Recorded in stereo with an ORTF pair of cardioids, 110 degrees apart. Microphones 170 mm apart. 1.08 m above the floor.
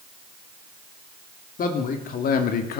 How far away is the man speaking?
About 2.5 m.